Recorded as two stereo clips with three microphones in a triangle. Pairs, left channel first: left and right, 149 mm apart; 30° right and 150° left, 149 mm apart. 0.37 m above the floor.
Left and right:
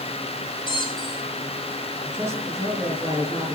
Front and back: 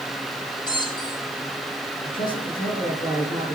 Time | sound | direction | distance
0.7 | a squeak | 30° left | 3.5 m
2.0 | a man speaking | 20° right | 5 m